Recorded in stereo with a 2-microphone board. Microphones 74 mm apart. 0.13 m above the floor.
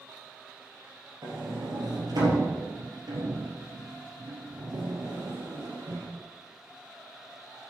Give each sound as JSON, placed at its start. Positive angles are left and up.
{"t": 1.2, "sound": "a sliding door", "side_deg": -65, "distance_m": 3.5}